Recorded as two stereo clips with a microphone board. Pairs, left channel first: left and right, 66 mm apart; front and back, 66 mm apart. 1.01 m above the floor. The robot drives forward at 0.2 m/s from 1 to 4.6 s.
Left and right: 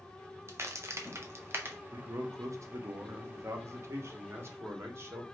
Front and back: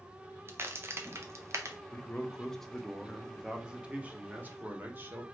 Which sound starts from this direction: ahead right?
A man speaking, at 1.9 s.